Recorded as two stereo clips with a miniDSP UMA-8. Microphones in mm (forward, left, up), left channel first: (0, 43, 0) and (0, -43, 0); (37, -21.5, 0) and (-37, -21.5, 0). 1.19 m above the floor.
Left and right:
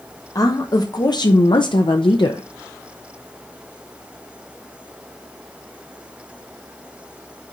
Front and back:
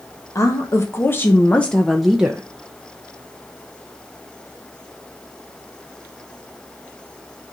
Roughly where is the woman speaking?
Ahead left.